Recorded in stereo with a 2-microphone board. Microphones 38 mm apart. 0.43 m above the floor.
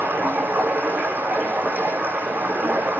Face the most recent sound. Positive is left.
turn(degrees=-55)  # may be behind; listen again after turning